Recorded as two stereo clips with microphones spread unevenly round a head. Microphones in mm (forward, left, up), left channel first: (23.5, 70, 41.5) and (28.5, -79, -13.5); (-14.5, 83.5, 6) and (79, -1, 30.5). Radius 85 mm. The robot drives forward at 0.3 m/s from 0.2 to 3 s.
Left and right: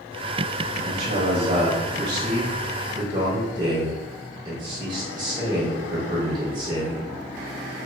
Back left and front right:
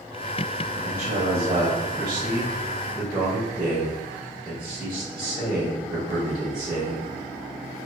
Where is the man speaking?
65° right, 0.6 m; by 7.1 s 135° right, 0.7 m.